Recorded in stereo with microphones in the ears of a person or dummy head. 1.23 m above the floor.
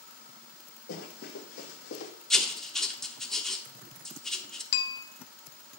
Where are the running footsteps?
60° left (ahead or behind), 3 m; by 2.1 s 65° left (ahead or behind), 3 m.